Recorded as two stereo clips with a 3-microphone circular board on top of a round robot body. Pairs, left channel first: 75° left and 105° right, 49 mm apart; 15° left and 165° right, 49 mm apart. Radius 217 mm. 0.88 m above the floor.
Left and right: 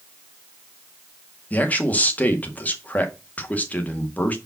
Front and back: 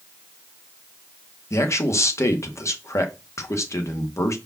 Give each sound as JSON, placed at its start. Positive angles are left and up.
{"t": 1.5, "sound": "a man speaking", "azimuth_deg": 20, "distance_m": 2.0}